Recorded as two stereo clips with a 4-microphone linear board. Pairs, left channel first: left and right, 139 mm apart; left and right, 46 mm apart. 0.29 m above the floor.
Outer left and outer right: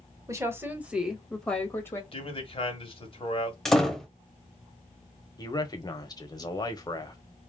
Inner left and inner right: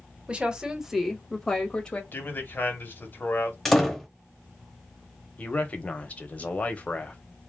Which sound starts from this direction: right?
A woman speaking, at 0.3 s.